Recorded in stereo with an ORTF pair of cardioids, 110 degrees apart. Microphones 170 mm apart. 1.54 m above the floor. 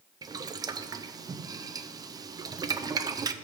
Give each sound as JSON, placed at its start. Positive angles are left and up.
{"t": 0.2, "sound": "boiling", "azimuth_deg": -25, "distance_m": 0.5}